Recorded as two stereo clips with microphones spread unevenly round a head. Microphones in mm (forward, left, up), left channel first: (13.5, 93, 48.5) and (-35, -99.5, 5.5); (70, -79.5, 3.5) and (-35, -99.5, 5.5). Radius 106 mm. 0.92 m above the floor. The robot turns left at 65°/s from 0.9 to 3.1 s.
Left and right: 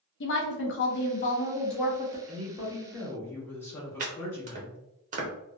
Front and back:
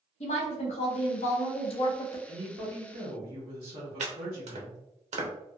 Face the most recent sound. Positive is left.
turn(degrees=-155)